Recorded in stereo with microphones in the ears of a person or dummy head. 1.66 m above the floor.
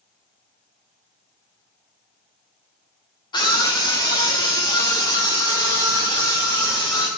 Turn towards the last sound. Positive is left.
turn(degrees=20)  # may be behind; listen again after turning